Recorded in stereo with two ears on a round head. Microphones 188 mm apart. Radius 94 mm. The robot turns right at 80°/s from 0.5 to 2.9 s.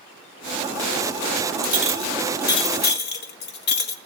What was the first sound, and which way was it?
A clink, 50° right.